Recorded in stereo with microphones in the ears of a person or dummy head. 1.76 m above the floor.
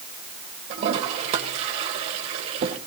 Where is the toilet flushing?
35° right (ahead or behind), 2 m.